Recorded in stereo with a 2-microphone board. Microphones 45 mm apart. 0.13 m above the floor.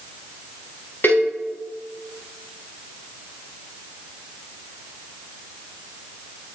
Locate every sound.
1.0 s a cowbell: 50° left (ahead or behind), 4.5 m